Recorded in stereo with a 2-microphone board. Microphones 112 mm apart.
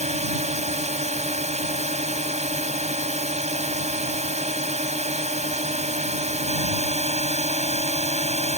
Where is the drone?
85° right.